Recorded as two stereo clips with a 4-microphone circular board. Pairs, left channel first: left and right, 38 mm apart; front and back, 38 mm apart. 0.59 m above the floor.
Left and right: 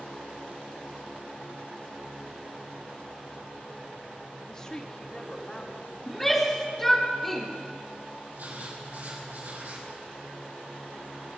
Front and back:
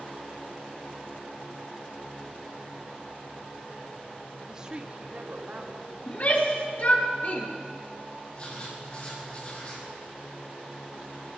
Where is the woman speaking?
140° left, 0.7 m; by 6.0 s 150° left, 1.7 m.